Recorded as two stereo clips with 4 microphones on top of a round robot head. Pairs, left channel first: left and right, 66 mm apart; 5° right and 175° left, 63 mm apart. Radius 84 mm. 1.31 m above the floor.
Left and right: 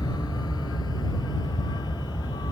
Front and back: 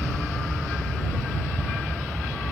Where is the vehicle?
75° left; by 2.5 s 80° left.